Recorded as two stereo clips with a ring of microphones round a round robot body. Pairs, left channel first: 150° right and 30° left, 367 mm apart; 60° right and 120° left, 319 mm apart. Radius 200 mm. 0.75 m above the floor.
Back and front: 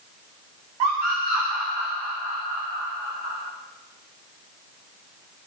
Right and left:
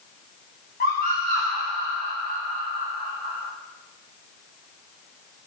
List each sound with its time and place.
0.8 s a scream: 10° left, 7.5 m; by 3.4 s 20° left, 7 m